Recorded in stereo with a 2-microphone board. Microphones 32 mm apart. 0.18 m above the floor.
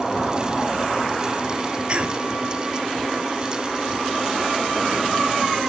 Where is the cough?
35° right (ahead or behind), 1.1 m.